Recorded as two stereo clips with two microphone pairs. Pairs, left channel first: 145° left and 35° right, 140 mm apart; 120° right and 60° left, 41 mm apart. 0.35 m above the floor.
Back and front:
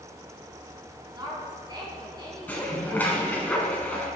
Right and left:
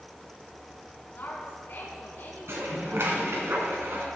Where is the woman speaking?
90° right, 3 m.